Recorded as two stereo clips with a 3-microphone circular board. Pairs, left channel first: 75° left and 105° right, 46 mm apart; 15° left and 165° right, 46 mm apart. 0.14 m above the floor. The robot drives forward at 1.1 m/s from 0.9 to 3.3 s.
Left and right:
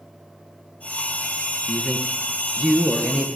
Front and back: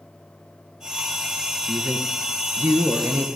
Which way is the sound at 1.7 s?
170° right.